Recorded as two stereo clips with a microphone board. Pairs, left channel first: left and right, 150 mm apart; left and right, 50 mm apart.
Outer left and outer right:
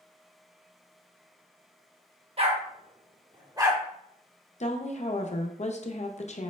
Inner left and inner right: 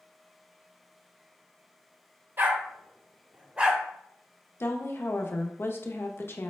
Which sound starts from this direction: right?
A dog barking, at 2.4 s.